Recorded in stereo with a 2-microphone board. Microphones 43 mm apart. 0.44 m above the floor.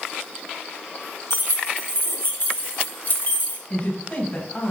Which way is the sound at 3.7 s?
40° left (ahead or behind).